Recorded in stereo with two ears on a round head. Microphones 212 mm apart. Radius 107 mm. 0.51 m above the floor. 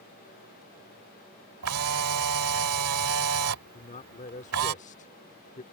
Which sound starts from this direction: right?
A camera shutter, at 1.6 s.